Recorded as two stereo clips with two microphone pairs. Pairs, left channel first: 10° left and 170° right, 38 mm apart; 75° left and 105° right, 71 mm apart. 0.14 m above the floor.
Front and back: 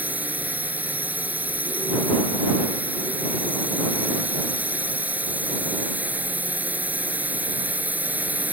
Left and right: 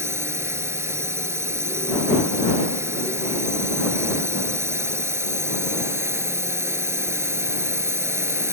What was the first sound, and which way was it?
A drone, 145° right.